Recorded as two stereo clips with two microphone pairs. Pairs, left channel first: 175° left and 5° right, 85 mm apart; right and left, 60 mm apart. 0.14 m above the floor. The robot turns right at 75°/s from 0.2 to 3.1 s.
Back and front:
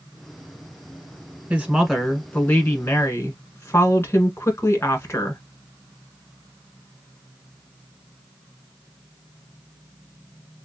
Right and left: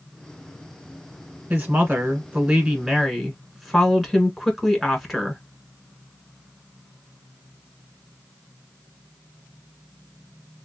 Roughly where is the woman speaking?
Ahead left.